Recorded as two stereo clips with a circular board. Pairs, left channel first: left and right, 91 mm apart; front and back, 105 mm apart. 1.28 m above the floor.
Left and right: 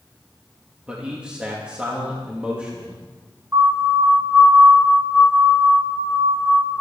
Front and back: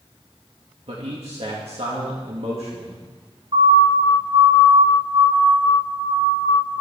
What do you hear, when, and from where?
0.9 s a man speaking: 165° right, 2.5 m
3.5 s a siren: 155° right, 6.5 m; by 6.8 s 170° right, 9.5 m